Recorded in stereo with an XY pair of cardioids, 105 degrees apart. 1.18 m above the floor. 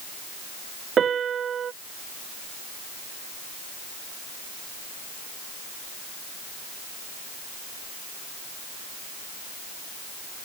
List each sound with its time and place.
1.0 s a piano: 50° right